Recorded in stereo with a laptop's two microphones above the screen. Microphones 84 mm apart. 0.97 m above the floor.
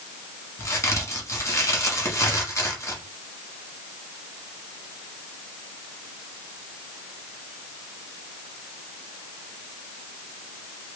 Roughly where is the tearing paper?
I don't hear tearing paper.